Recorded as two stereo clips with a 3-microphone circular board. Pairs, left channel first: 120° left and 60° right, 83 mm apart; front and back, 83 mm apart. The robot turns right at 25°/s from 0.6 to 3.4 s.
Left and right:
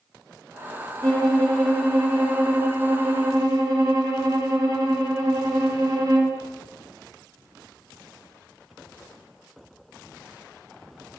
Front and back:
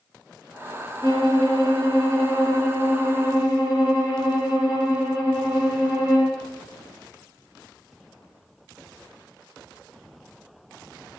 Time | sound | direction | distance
1.0 | a violin | 165° right | 3.5 m